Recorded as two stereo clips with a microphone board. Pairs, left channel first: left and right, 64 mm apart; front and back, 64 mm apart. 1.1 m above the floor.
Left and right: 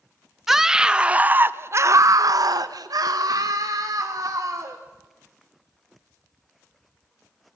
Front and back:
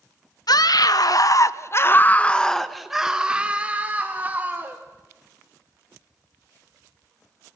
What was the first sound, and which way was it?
A scream, 5° right.